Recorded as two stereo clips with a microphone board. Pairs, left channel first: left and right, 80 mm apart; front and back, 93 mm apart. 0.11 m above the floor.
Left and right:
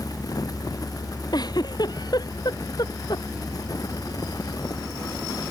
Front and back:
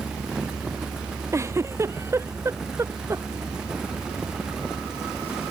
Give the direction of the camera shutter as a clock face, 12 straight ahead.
I don't hear a camera shutter.